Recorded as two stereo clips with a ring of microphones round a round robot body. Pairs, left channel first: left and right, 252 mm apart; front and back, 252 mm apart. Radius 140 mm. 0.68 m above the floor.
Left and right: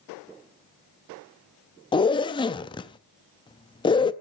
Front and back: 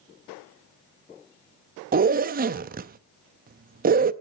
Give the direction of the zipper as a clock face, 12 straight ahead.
7 o'clock.